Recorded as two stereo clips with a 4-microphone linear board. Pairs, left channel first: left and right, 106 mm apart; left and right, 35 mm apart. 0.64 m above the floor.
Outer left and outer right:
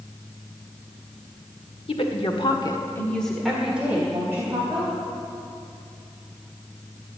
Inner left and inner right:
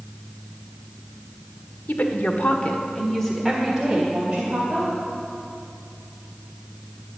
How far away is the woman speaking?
About 1.8 m.